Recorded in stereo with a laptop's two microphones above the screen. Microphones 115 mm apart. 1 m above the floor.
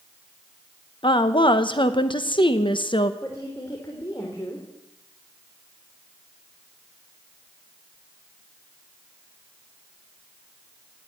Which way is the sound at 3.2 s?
25° left (ahead or behind).